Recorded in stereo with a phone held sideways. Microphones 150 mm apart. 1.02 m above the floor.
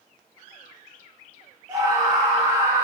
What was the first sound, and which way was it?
A scream, 25° right (ahead or behind).